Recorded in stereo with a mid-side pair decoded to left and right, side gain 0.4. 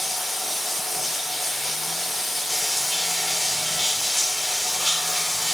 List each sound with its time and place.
0.0 s running water: 10° left, 2.5 m